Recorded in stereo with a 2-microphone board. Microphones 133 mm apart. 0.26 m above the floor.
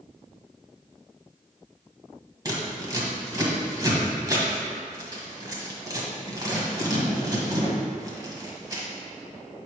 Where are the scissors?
25° right (ahead or behind), 1.4 m.